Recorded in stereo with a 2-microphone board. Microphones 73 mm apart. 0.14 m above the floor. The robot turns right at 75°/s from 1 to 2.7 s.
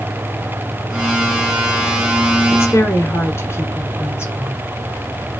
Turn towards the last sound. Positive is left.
turn(degrees=35)  # may be behind; listen again after turning